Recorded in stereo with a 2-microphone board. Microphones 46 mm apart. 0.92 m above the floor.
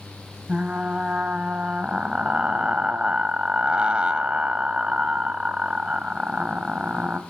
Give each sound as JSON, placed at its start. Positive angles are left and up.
{"t": 0.5, "sound": "frying", "side_deg": -20, "distance_m": 0.7}